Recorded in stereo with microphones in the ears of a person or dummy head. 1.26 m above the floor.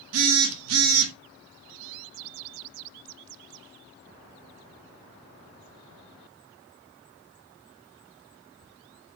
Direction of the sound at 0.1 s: 80° right.